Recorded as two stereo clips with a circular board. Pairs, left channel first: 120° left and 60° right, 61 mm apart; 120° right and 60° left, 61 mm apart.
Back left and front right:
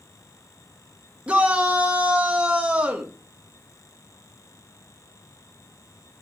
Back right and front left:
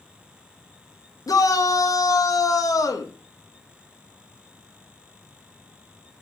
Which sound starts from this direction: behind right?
A shout, at 1.3 s.